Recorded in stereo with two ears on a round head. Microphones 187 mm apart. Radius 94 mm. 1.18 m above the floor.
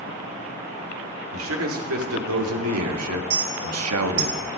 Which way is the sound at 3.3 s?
45° right (ahead or behind).